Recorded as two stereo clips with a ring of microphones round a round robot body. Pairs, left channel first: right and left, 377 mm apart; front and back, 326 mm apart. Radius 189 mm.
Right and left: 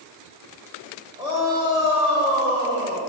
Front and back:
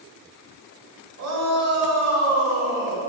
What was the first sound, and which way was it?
A shout, 165° left.